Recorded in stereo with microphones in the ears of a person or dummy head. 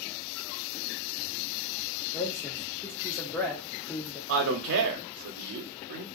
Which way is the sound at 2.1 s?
10° left (ahead or behind).